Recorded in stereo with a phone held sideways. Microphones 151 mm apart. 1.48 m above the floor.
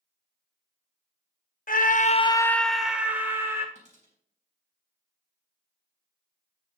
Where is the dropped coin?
50° right (ahead or behind), 4 m.